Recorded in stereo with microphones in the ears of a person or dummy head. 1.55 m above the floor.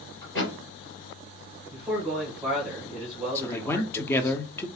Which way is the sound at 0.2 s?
20° left (ahead or behind).